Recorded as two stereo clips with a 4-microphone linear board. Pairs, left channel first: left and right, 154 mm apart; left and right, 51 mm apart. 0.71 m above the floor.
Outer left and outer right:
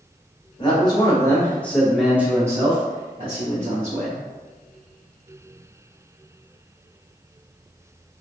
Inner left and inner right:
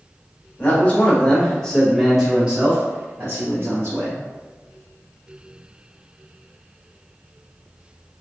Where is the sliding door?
I don't hear a sliding door.